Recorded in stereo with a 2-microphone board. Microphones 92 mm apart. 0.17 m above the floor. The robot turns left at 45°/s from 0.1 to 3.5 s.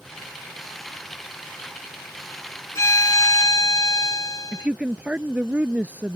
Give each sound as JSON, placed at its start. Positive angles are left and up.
{"t": 2.8, "sound": "a violin", "azimuth_deg": 135}
{"t": 4.5, "sound": "a woman speaking", "side_deg": -15}